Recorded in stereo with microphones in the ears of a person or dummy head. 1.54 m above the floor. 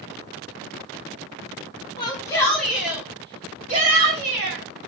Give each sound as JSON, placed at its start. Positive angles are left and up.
{"t": 2.0, "sound": "a shout", "side_deg": 25, "distance_m": 1.0}